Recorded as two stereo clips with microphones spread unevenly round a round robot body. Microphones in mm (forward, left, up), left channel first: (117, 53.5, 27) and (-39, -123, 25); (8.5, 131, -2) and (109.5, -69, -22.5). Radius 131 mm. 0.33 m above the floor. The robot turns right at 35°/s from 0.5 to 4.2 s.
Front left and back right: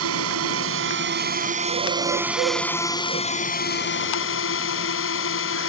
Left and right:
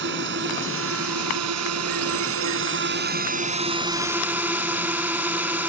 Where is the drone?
110° right; by 5.7 s 20° left.